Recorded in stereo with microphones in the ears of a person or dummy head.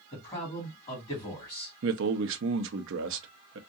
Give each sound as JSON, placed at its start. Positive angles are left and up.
{"t": 0.1, "sound": "a man speaking", "side_deg": 15, "distance_m": 2.5}
{"t": 1.8, "sound": "a man speaking", "side_deg": -60, "distance_m": 0.8}